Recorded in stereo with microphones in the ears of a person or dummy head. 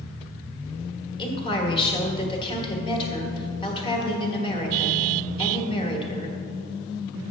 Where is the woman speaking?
30° left (ahead or behind), 1.3 m.